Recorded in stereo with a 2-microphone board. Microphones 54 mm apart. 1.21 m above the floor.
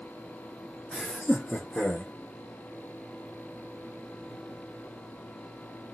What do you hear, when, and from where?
0.9 s laughter: centre (ahead or behind), 0.7 m; by 2.1 s 25° left (ahead or behind), 1.5 m